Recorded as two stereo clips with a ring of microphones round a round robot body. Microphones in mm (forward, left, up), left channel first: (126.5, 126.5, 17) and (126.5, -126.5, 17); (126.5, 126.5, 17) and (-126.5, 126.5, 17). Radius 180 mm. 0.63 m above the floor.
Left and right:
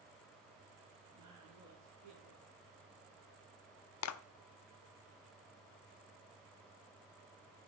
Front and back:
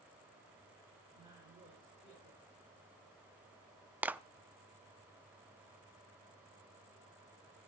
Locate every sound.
1.1 s a woman speaking: 100° right, 7 m
4.0 s a clap: 95° left, 0.6 m